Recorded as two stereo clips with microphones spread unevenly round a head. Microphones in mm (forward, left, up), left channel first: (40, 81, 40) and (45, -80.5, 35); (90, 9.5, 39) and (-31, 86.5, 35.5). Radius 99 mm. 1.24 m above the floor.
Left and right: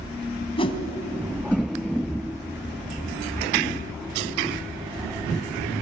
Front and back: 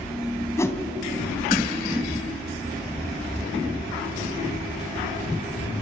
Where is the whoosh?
35° left, 2.5 m.